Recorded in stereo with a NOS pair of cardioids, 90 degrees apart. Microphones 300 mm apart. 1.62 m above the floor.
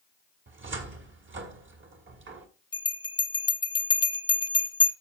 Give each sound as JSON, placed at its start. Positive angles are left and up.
{"t": 0.5, "sound": "a cupboard door", "azimuth_deg": -40, "distance_m": 2.0}
{"t": 2.7, "sound": "a bell", "azimuth_deg": 15, "distance_m": 1.0}